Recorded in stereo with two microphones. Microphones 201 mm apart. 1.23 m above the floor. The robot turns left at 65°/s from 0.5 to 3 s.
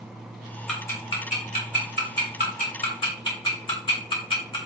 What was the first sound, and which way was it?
Ticking, centre (ahead or behind).